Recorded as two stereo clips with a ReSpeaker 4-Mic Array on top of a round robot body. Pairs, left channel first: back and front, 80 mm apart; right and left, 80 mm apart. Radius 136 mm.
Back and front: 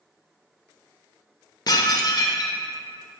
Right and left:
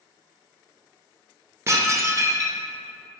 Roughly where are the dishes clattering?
Behind left.